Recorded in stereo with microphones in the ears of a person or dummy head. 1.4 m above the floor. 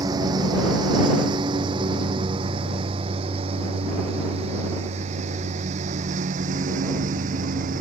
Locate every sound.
0.0 s a lawn mower: 20° right (ahead or behind); by 7.8 s 45° right (ahead or behind)